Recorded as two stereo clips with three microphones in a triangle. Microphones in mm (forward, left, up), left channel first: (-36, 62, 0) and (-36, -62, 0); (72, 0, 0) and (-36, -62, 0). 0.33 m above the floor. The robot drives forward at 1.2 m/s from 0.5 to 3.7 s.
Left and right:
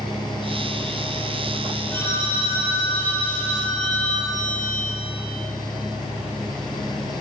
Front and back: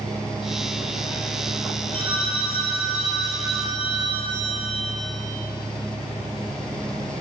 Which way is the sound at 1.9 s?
160° left.